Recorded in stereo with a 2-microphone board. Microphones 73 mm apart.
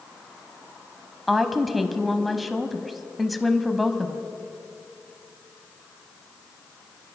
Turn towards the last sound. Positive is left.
turn(degrees=0)  # may be behind; listen again after turning